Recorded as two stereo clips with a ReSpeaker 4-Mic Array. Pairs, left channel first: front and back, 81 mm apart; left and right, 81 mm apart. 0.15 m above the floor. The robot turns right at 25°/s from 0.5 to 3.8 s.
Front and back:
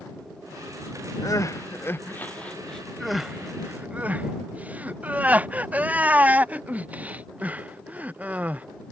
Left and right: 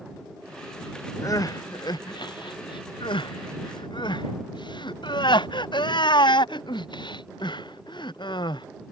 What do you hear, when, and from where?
1.2 s crying: 45° left; by 8.7 s 110° left